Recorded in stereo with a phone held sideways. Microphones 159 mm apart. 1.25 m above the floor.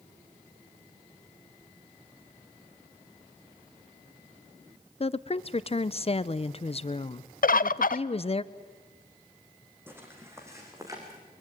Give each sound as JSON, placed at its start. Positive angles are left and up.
{"t": 5.0, "sound": "a woman speaking", "side_deg": 40, "distance_m": 0.7}
{"t": 7.4, "sound": "a bird", "side_deg": 65, "distance_m": 0.5}
{"t": 9.9, "sound": "footsteps", "side_deg": -15, "distance_m": 4.0}